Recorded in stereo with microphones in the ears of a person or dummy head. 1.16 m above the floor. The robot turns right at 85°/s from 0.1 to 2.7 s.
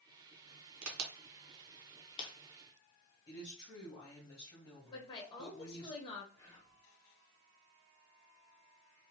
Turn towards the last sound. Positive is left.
turn(degrees=15)  # may be behind; listen again after turning